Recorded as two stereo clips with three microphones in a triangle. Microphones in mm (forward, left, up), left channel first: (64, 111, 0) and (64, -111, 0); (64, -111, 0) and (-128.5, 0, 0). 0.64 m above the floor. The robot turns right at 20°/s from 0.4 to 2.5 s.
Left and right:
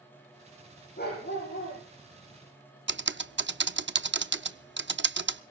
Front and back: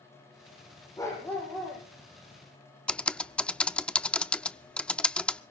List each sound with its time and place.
1.0 s a dog barking: 45° left, 8.5 m; by 1.8 s 60° left, 8.5 m
2.9 s typing on a keyboard: 115° right, 0.6 m